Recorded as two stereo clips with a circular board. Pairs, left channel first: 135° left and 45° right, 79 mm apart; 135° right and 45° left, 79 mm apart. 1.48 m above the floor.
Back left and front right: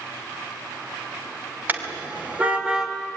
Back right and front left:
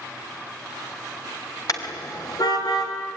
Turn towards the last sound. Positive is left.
turn(degrees=-125)